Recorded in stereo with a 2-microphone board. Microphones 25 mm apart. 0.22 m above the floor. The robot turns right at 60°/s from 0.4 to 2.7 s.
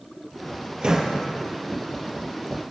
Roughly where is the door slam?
Right.